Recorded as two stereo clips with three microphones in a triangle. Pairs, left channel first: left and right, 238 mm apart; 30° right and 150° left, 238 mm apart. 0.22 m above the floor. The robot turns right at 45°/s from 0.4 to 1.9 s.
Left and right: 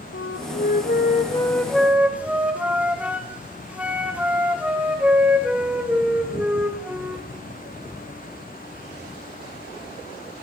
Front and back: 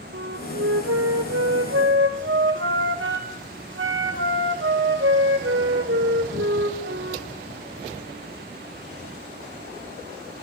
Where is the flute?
120° left, 1.8 m; by 7.3 s 175° right, 1.8 m.